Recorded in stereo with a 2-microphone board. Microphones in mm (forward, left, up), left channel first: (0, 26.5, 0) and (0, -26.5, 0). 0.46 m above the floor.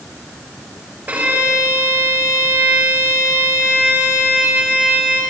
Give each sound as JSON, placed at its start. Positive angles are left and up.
{"t": 1.1, "sound": "a violin", "side_deg": -30, "distance_m": 7.0}